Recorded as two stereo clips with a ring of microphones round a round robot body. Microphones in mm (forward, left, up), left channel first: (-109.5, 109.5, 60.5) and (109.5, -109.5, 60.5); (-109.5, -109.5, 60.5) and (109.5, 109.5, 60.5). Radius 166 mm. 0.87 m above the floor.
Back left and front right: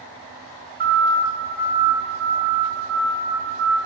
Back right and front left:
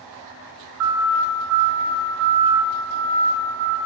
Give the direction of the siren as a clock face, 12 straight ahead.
12 o'clock.